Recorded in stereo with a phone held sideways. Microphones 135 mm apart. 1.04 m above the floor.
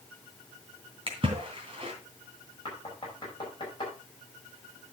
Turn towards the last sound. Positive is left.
turn(degrees=35)  # may be behind; listen again after turning